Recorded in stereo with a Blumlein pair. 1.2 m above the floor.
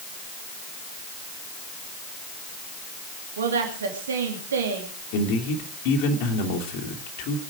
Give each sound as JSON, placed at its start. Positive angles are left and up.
{"t": 3.4, "sound": "a woman speaking", "azimuth_deg": -65, "distance_m": 2.5}
{"t": 5.1, "sound": "a man speaking", "azimuth_deg": 45, "distance_m": 2.5}